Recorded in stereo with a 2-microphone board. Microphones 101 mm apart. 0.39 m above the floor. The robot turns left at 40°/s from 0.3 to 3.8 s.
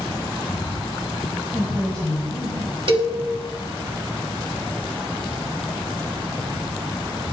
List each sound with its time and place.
1.5 s a woman speaking: 25° left, 2 m; by 3.4 s 50° right, 2 m
2.9 s a cowbell: 60° right (ahead or behind), 0.8 m; by 3.1 s 50° right (ahead or behind), 0.8 m